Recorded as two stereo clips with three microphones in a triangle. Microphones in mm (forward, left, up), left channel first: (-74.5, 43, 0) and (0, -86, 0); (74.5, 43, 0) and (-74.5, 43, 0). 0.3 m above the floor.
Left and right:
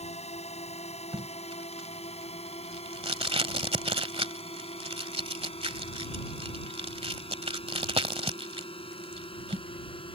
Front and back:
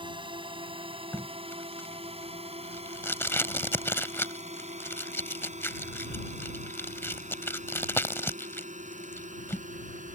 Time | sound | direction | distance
0.0 | a drone | 135° left | ?
1.1 | tape being pulled | 65° right | ?